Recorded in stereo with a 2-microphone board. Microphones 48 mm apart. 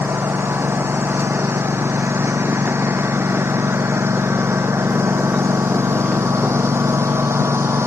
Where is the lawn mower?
55° right (ahead or behind); by 7.9 s 70° right (ahead or behind).